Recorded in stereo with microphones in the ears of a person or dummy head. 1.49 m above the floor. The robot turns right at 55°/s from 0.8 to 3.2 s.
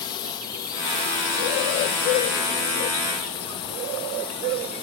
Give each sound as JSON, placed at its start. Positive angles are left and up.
{"t": 0.0, "sound": "a drone", "side_deg": 25}